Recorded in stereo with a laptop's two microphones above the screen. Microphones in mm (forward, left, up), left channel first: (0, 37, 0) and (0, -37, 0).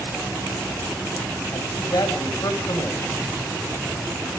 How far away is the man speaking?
About 4.5 m.